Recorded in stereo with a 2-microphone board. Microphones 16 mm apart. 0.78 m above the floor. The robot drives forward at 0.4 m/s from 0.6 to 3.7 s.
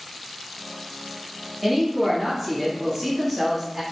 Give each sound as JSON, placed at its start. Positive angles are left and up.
{"t": 1.6, "sound": "a woman speaking", "side_deg": 0, "distance_m": 1.0}